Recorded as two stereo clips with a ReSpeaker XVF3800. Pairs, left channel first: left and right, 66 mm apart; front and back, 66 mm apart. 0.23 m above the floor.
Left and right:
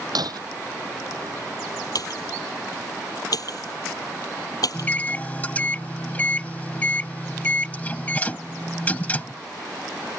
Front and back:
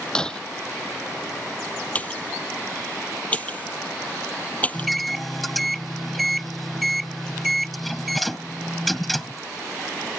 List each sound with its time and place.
0.1 s breaking glass: 80° right
1.9 s a pop: 65° left
4.7 s a microwave: 85° left